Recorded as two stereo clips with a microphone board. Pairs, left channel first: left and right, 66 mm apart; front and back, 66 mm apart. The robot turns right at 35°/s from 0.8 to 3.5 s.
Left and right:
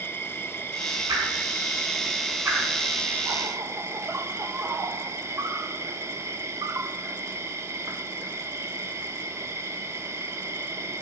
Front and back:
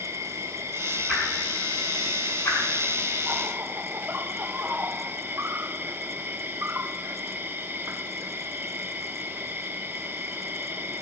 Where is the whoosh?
105° right, 7 m; by 2.6 s 50° right, 7 m.